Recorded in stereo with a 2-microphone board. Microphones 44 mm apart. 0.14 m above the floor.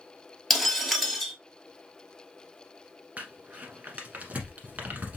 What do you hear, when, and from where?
0.5 s breaking glass: centre (ahead or behind), 1.3 m
3.2 s crumpling: 40° right (ahead or behind), 1.1 m